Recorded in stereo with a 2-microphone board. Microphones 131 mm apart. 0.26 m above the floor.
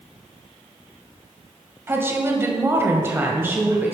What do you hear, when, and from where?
1.9 s a woman speaking: 20° right (ahead or behind), 1.3 m; by 3.9 s 15° right (ahead or behind), 1.4 m